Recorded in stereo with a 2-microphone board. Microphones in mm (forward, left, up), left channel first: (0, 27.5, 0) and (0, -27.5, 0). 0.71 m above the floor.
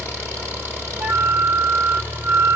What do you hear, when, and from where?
0.0 s an engine running: 50° right (ahead or behind), 6.5 m
1.0 s a flute: 50° right (ahead or behind), 0.9 m